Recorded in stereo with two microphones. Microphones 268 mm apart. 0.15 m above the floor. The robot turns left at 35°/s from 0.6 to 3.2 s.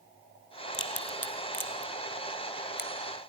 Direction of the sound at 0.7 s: 50° left (ahead or behind).